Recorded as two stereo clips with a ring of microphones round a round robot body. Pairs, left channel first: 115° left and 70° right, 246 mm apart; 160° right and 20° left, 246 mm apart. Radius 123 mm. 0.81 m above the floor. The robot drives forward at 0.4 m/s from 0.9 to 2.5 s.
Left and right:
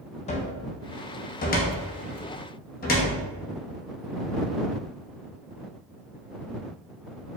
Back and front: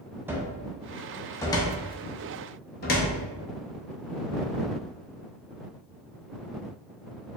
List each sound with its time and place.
0.3 s a cupboard door: 95° left, 0.6 m; by 3.1 s 160° left, 0.9 m